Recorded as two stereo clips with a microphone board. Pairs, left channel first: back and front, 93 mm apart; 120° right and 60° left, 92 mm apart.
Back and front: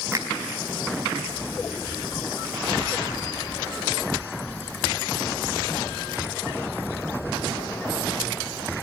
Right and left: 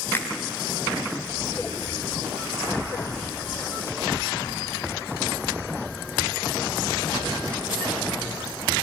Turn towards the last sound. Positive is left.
turn(degrees=-55)